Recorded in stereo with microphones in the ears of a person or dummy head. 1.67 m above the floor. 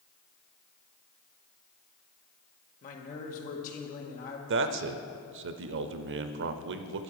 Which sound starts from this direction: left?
A man speaking, at 2.8 s.